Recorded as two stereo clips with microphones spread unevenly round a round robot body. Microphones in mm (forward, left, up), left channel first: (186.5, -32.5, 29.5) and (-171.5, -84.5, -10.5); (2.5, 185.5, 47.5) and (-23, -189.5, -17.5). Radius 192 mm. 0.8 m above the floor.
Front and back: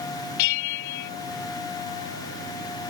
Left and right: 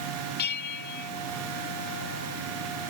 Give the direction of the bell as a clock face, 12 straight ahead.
11 o'clock.